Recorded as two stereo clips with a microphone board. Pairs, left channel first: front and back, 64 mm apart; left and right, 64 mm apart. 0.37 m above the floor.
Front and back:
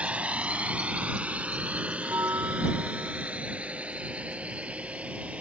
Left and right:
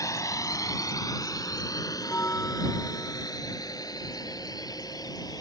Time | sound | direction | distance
0.0 | a drone | 115° left | ?
2.0 | a bell | 140° left | ?